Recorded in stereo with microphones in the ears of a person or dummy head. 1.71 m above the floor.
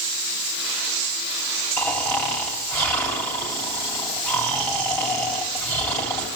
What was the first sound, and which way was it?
Snoring, 15° left (ahead or behind).